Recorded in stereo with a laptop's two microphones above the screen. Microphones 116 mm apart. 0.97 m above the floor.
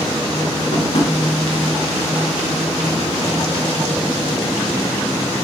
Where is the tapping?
65° left (ahead or behind), 1.6 m.